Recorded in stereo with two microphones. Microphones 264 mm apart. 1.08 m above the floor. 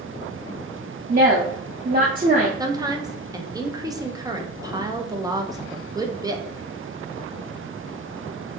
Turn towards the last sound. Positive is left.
turn(degrees=-15)  # may be behind; listen again after turning